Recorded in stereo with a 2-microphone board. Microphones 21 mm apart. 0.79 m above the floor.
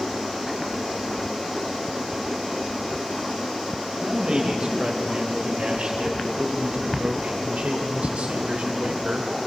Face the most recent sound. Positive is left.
turn(degrees=-75)  # may be behind; listen again after turning